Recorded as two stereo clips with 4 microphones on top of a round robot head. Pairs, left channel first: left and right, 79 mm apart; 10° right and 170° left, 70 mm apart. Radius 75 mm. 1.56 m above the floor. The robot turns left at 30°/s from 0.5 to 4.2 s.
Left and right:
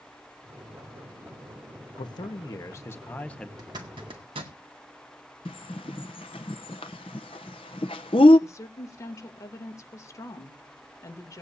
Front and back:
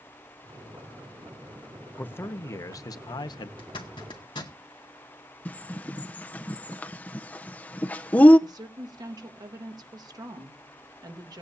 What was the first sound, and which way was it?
A man speaking, 55° left.